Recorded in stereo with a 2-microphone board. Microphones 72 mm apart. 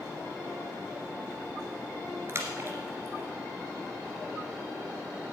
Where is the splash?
40° right (ahead or behind), 1.8 m.